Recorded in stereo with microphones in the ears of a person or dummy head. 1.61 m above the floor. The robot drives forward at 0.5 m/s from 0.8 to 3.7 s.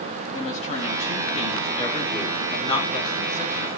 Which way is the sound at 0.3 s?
35° left (ahead or behind).